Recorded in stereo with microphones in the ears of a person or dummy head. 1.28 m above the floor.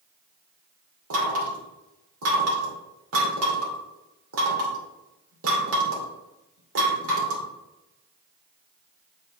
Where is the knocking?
75° right (ahead or behind), 2.5 m.